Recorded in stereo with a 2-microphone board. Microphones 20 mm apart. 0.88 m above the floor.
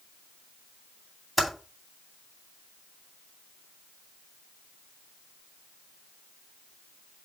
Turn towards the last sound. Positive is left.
turn(degrees=-5)  # may be behind; listen again after turning